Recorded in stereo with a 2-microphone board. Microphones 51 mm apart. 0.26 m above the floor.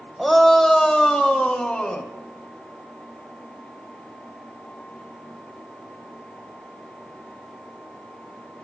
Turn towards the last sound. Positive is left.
turn(degrees=20)  # may be behind; listen again after turning